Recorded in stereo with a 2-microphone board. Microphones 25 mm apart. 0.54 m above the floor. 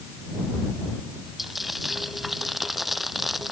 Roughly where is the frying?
Centre.